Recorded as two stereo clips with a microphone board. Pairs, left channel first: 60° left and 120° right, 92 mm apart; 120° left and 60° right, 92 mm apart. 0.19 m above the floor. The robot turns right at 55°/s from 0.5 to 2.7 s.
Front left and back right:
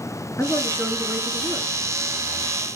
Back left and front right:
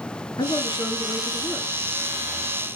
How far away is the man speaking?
About 2.5 m.